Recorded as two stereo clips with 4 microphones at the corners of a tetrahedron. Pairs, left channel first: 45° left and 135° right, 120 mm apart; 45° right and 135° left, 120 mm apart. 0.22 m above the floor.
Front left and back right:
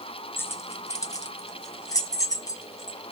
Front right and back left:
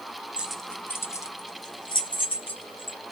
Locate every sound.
0.4 s keys jangling: 75° left, 0.6 m; by 3.0 s 15° right, 1.7 m